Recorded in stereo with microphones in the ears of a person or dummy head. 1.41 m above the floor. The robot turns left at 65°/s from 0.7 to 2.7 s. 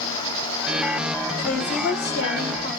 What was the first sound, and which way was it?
A woman speaking, 115° left.